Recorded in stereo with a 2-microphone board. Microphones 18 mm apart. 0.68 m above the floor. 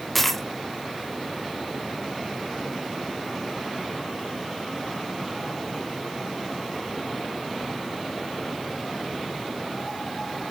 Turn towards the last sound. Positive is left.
turn(degrees=10)  # may be behind; listen again after turning